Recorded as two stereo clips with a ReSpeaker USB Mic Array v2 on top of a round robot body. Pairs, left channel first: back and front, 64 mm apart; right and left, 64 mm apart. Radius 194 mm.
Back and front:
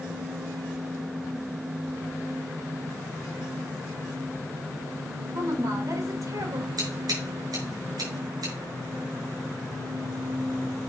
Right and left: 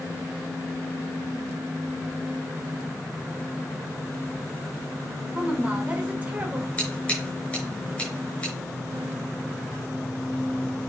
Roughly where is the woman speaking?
Ahead.